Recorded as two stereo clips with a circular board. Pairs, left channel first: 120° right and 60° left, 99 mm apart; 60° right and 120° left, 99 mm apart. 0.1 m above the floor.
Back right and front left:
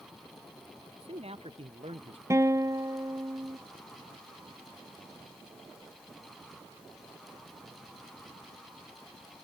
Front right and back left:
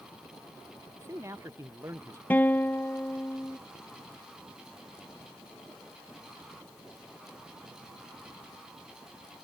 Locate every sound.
1.0 s a man speaking: 60° left
2.3 s a guitar: 10° left